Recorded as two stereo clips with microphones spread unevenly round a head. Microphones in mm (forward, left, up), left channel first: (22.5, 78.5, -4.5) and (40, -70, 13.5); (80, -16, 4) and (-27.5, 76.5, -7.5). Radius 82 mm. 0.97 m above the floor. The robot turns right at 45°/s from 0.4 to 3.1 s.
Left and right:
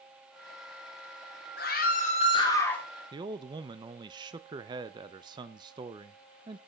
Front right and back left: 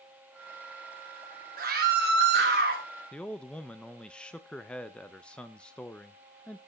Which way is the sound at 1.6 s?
120° left.